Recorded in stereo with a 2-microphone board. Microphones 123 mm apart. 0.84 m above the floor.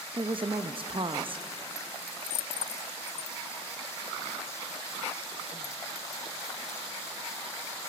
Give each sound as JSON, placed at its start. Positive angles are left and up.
{"t": 0.1, "sound": "a woman speaking", "side_deg": -45, "distance_m": 0.5}